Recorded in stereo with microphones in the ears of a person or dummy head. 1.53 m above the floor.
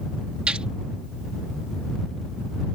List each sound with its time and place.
0.5 s a gunshot: 5° right (ahead or behind)